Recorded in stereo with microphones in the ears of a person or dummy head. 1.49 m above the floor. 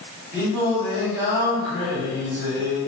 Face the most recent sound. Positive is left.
turn(degrees=-50)  # may be behind; listen again after turning